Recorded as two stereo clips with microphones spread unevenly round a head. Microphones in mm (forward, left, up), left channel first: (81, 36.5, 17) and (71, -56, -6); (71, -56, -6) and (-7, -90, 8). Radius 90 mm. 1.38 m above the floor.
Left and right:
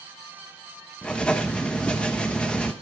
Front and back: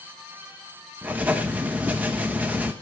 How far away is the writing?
About 0.6 m.